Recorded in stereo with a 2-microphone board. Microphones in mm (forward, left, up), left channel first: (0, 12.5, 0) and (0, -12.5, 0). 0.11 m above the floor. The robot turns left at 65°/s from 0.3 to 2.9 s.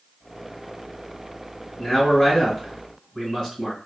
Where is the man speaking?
20° left (ahead or behind), 1.8 m.